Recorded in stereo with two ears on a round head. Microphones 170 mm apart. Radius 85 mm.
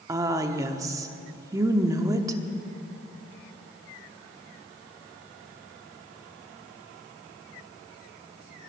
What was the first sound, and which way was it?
A woman speaking, 20° right (ahead or behind).